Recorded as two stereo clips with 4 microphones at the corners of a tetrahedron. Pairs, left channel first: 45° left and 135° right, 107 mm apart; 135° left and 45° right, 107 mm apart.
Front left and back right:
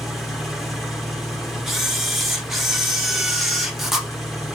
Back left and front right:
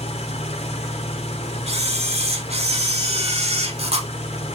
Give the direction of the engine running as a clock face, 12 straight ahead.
7 o'clock.